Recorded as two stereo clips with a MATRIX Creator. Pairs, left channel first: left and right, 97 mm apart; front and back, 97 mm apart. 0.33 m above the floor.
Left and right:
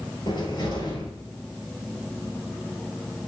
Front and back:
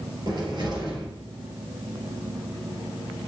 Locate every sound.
0.3 s a cupboard door: 130° left, 2 m